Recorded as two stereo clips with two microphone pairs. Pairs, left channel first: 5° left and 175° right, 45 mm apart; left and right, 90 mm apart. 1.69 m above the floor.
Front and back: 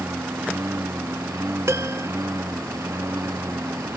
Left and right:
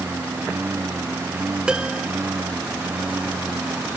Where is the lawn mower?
160° right; by 4.0 s 165° right.